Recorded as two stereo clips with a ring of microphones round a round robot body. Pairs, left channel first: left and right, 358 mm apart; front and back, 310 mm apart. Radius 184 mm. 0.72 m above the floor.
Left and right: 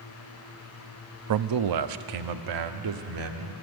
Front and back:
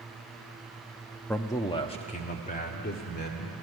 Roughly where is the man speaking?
Right.